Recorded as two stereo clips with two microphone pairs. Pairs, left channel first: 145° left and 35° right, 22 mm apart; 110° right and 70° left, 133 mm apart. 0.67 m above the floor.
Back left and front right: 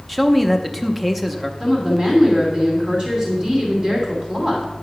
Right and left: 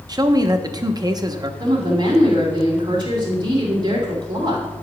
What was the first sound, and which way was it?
A man speaking, 40° left.